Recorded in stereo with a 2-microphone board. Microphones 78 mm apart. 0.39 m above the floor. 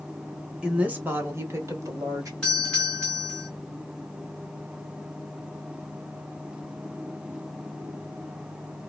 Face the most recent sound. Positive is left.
turn(degrees=10)  # may be behind; listen again after turning